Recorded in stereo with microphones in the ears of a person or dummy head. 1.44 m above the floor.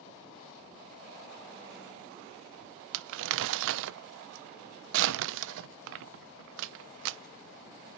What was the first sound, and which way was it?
Crumpling, 75° right (ahead or behind).